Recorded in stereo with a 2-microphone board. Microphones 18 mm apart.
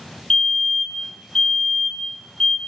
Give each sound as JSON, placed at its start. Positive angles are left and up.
{"t": 0.3, "sound": "a fire alarm", "side_deg": 35, "distance_m": 5.5}